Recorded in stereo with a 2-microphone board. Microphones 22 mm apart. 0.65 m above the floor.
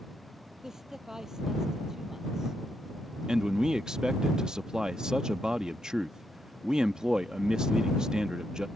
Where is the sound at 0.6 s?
20° right (ahead or behind).